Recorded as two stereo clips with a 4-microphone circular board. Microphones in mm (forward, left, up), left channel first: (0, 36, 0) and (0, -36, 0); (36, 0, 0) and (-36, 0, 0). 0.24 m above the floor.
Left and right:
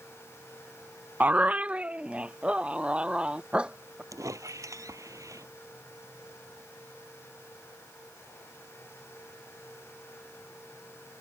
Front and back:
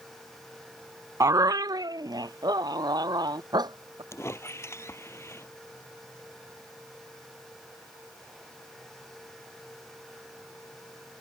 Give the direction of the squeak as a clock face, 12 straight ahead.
2 o'clock.